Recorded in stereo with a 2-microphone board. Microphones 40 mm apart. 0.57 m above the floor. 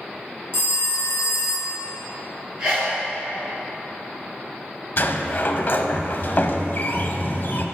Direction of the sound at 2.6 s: 15° right (ahead or behind).